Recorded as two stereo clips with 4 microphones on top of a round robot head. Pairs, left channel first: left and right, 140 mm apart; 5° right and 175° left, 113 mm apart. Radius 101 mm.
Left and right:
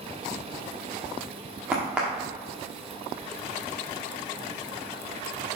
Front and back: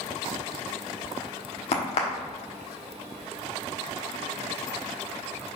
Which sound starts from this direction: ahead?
A crack, at 1.7 s.